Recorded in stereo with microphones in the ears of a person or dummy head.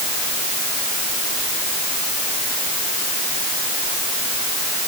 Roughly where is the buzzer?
I don't hear a buzzer.